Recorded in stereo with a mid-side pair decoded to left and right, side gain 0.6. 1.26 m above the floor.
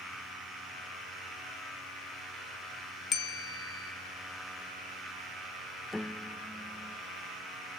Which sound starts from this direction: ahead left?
A bell, at 3.1 s.